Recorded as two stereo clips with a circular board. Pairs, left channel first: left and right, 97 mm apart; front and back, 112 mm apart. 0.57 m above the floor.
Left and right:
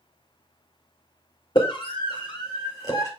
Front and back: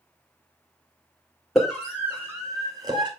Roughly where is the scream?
Left.